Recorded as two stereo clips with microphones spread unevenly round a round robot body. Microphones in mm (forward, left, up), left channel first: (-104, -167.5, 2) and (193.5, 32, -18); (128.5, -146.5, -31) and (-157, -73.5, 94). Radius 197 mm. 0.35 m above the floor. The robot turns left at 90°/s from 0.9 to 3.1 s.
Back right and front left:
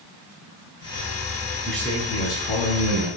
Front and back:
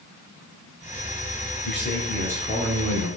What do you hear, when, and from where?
1.6 s a man speaking: 50° right, 4.5 m; by 3.1 s 175° right, 4.5 m